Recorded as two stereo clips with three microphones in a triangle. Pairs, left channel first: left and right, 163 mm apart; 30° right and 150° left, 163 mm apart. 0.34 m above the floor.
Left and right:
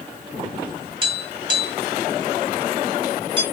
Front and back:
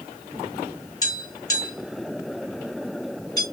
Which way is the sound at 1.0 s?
75° right.